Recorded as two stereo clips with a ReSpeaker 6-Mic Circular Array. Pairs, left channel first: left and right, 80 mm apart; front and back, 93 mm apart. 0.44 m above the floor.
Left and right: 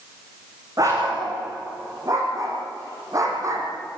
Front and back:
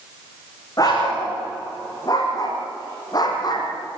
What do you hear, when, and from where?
0.8 s a dog barking: 50° right, 9 m; by 3.7 s 40° right, 5 m